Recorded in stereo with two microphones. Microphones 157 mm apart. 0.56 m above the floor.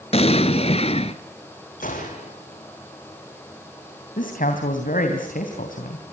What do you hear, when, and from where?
0.1 s an explosion: 45° left (ahead or behind), 1.4 m
1.8 s a gunshot: 65° left (ahead or behind), 6.5 m
4.2 s a man speaking: 70° left (ahead or behind), 3 m